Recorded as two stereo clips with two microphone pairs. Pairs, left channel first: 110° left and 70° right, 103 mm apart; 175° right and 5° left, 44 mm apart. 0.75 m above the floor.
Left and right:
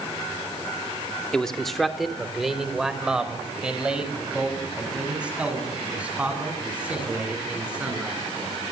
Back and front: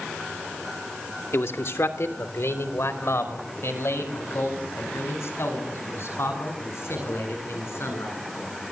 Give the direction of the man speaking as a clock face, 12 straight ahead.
6 o'clock.